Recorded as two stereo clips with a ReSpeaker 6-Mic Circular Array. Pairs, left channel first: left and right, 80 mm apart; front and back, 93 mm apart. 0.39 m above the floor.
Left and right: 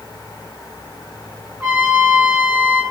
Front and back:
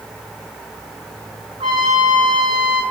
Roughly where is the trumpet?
Behind.